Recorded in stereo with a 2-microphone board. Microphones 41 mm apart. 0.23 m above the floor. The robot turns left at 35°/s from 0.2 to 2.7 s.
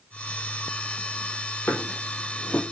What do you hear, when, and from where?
1.7 s a drawer: 60° left (ahead or behind), 3 m; by 2.6 s 25° left (ahead or behind), 3 m